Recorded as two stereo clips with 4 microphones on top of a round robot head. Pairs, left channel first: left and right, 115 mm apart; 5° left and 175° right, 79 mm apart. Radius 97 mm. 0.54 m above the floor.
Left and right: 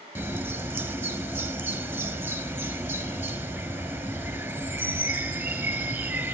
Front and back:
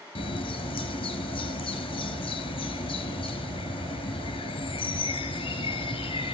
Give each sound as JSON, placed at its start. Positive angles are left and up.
{"t": 0.1, "sound": "a bird", "azimuth_deg": -15, "distance_m": 3.5}